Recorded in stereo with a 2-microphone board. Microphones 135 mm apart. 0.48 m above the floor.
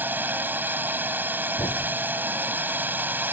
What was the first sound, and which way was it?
A drone, 15° right (ahead or behind).